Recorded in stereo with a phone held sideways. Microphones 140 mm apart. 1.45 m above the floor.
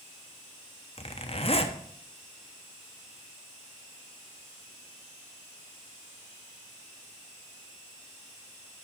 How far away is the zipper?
About 1.0 m.